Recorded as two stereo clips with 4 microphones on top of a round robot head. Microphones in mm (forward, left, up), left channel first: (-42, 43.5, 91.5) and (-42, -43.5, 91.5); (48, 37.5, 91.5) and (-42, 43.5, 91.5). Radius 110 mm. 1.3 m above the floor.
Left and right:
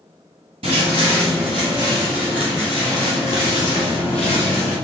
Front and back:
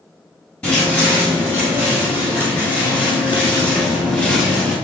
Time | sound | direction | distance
0.6 | footsteps | 85° right | 1.6 m